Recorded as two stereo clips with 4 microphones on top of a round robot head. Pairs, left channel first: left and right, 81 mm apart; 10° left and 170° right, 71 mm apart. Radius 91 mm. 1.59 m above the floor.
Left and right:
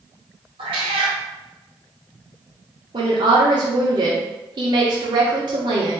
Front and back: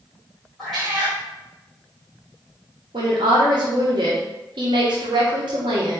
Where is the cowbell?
No cowbell in this recording.